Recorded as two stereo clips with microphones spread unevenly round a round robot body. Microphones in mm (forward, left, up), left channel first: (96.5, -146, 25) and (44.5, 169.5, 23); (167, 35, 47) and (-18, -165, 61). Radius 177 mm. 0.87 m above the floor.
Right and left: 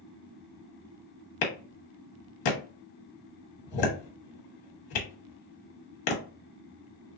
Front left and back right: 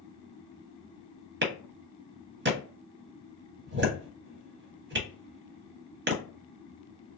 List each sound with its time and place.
1.4 s a clap: 80° right, 1.2 m